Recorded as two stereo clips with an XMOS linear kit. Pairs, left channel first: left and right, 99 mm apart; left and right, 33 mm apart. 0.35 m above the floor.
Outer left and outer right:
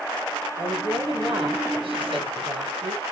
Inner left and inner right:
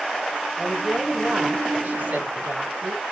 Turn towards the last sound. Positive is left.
turn(degrees=-65)  # may be behind; listen again after turning